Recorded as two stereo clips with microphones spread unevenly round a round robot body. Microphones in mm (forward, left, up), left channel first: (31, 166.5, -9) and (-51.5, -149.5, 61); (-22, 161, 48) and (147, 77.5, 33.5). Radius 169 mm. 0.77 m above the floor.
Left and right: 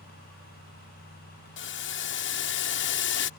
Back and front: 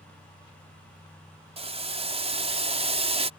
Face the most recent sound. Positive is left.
turn(degrees=30)